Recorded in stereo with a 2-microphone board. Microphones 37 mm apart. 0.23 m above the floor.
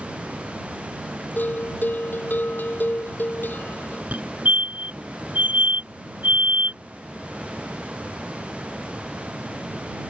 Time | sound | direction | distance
1.4 | a bell | 55° left (ahead or behind) | ?
4.1 | a fire alarm | 45° right (ahead or behind) | ?